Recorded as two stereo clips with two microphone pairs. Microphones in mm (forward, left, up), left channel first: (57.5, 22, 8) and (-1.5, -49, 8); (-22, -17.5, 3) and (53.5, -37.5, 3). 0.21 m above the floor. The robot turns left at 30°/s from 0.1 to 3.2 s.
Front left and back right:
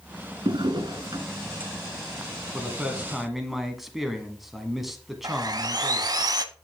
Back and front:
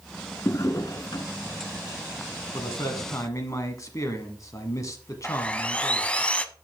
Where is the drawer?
145° right, 1.2 m; by 1.3 s 175° right, 1.2 m.